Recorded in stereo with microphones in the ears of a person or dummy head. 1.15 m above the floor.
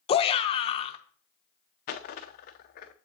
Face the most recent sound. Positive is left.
turn(degrees=35)  # may be behind; listen again after turning